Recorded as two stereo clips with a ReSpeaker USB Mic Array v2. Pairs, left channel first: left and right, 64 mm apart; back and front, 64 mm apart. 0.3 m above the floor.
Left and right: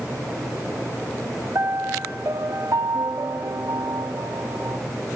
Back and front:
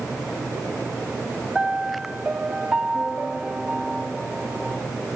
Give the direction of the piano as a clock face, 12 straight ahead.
2 o'clock.